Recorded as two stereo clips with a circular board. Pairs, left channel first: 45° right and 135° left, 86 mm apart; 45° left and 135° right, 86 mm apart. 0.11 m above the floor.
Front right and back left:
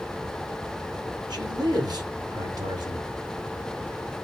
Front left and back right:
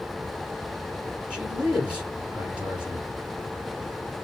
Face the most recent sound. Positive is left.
turn(degrees=150)